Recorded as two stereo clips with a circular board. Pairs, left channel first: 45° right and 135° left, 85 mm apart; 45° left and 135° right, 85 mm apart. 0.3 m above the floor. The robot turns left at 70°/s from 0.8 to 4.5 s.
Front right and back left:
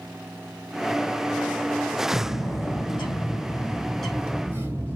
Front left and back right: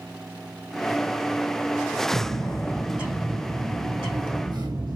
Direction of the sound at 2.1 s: Straight ahead.